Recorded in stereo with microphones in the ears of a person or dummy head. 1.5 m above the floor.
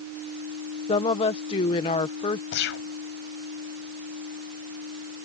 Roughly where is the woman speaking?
Left.